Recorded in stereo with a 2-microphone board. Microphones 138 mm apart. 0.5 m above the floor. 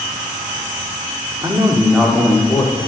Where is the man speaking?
30° right (ahead or behind), 1.0 m; by 2.9 s 30° left (ahead or behind), 1.2 m.